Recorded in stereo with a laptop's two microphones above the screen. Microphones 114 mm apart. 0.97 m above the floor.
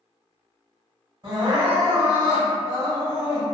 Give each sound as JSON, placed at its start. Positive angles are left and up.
{"t": 1.2, "sound": "crying", "side_deg": -45, "distance_m": 1.7}